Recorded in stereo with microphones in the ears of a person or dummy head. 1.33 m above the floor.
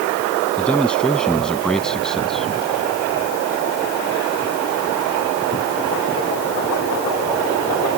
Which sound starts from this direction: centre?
A man speaking, at 0.6 s.